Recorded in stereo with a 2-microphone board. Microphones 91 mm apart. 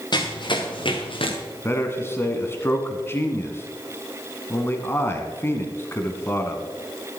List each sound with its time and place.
0.1 s running footsteps: 50° left (ahead or behind), 3 m; by 1.4 s 75° left (ahead or behind), 3 m
1.6 s a man speaking: 25° left (ahead or behind), 1.7 m